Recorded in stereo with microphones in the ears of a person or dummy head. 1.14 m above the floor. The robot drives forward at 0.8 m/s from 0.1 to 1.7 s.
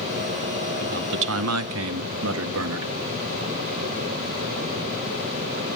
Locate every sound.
0.8 s a man speaking: 40° right (ahead or behind), 0.7 m; by 2.9 s 65° right (ahead or behind), 0.5 m